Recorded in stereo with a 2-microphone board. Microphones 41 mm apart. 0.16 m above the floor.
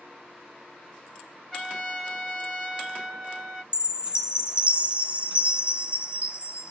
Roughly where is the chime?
Right.